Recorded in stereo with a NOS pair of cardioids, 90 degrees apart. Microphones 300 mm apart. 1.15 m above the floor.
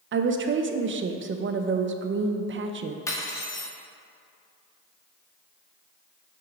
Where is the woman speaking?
40° right, 0.7 m.